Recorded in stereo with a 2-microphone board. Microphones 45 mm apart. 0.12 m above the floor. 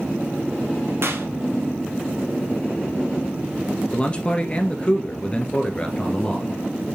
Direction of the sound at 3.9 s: 25° left (ahead or behind).